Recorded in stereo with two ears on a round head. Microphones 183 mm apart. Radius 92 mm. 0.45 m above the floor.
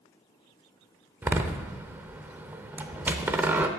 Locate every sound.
1.2 s a door slam: 10° right (ahead or behind), 0.7 m